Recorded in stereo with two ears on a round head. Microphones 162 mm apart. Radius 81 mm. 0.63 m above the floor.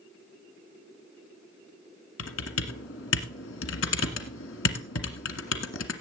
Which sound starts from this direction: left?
Typing on a keyboard, at 2.2 s.